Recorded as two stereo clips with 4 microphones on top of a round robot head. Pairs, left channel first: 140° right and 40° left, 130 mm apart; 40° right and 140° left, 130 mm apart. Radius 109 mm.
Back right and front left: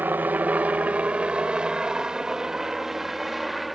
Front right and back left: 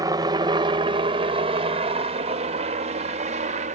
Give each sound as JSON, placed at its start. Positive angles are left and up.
{"t": 0.0, "sound": "a helicopter", "azimuth_deg": 105}